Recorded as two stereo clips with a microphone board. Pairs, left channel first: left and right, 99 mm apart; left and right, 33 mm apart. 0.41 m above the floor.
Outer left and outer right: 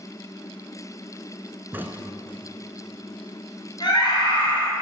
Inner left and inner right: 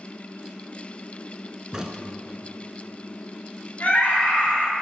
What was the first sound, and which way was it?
A crack, 20° right (ahead or behind).